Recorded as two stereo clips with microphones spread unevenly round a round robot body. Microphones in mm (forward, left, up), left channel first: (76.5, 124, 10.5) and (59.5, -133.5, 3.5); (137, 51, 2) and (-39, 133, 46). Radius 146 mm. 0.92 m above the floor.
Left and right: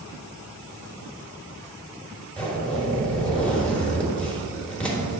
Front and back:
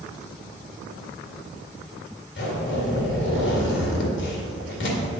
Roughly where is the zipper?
Ahead.